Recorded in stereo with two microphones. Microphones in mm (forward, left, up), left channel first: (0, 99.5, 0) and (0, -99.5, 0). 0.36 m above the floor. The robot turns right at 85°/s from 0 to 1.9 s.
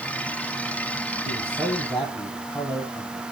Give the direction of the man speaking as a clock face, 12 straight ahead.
2 o'clock.